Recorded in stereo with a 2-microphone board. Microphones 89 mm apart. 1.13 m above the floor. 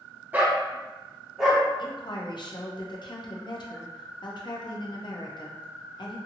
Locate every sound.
0.3 s a dog barking: 20° right (ahead or behind), 0.6 m; by 1.6 s centre (ahead or behind), 1.1 m
1.8 s a woman speaking: 55° left (ahead or behind), 0.6 m